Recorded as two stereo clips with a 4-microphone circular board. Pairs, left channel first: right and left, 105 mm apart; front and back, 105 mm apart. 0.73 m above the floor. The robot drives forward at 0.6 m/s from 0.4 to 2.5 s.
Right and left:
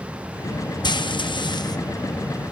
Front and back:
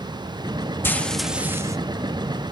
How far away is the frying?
About 0.6 m.